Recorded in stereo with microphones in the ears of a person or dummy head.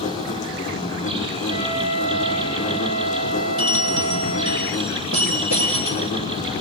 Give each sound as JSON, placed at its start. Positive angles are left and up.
{"t": 0.0, "sound": "an insect", "side_deg": 35, "distance_m": 6.0}
{"t": 1.5, "sound": "a flute", "side_deg": -85, "distance_m": 6.0}
{"t": 3.6, "sound": "a bell", "side_deg": -80, "distance_m": 7.0}